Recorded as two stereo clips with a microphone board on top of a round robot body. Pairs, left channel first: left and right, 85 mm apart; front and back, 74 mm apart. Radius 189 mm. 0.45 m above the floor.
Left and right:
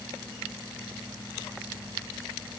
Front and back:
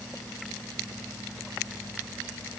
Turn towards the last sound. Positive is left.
No sound to turn to.